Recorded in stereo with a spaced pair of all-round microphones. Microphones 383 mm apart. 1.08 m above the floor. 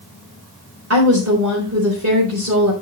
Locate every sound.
0.9 s a woman speaking: 40° right (ahead or behind), 3 m